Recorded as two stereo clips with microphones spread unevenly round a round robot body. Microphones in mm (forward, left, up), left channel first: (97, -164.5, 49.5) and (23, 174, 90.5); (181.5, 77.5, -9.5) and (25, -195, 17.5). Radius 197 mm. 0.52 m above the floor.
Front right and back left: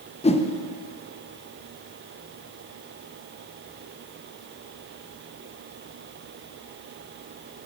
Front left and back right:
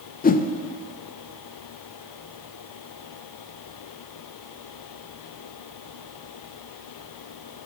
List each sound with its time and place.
0.2 s a whoosh: 5° right, 0.5 m